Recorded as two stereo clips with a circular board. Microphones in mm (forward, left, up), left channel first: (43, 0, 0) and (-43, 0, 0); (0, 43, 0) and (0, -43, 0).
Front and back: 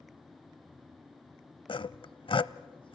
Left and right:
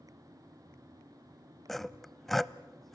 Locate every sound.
1.7 s sawing: straight ahead, 0.6 m